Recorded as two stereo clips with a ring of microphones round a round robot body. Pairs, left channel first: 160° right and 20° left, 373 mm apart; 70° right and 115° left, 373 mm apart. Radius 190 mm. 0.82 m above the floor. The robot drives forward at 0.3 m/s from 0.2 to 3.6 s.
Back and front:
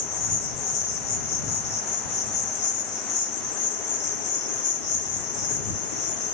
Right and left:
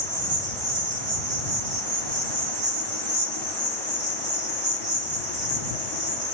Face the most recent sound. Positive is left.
turn(degrees=170)